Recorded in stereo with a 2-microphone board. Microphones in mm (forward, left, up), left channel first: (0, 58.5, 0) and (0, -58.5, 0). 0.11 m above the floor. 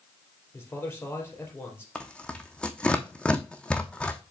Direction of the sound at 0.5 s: 20° left (ahead or behind).